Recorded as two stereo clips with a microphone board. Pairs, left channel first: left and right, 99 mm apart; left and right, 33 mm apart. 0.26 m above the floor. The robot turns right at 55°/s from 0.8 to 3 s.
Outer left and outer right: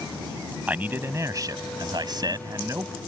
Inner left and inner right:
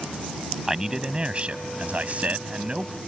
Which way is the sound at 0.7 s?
155° right.